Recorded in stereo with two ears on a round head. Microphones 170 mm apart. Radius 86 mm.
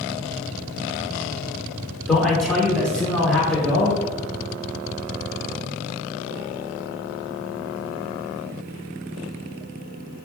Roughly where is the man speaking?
Centre.